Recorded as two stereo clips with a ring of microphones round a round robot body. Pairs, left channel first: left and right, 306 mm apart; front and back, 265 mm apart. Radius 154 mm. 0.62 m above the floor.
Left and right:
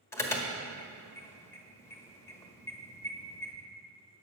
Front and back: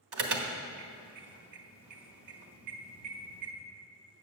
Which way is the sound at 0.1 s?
170° left.